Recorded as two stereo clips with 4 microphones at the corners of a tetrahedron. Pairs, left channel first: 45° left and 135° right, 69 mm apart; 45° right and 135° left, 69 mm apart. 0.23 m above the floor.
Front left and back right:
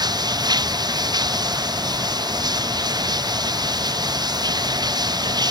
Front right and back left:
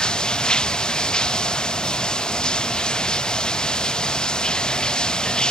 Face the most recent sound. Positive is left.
turn(degrees=-125)